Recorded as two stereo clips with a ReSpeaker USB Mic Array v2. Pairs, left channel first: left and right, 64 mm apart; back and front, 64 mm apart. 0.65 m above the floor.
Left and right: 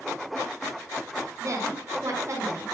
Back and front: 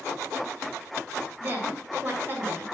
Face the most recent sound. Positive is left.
turn(degrees=-55)